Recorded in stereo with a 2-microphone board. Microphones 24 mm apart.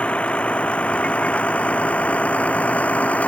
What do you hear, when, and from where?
0.0 s a vehicle: 55° left (ahead or behind); by 3.3 s 80° left